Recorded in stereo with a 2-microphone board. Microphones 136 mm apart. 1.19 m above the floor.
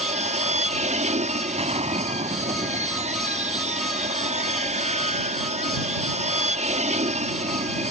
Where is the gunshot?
55° right (ahead or behind).